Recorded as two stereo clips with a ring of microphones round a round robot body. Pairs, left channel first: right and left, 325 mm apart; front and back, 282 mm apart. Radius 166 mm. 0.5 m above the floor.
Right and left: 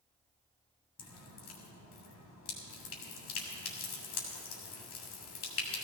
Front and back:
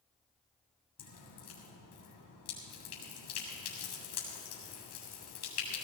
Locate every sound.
1.0 s dripping: 45° right, 3 m